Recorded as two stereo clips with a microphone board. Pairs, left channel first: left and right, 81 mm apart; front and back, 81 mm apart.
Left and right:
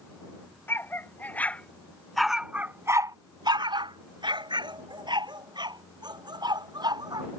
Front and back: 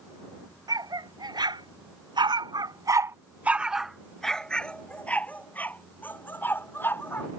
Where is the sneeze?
I don't hear a sneeze.